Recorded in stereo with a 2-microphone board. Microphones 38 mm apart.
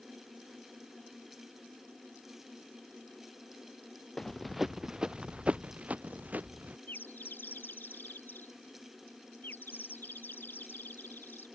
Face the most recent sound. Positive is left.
turn(degrees=65)  # may be behind; listen again after turning